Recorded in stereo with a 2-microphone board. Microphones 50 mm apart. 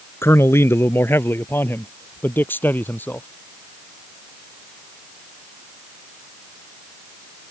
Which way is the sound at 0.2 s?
65° left (ahead or behind).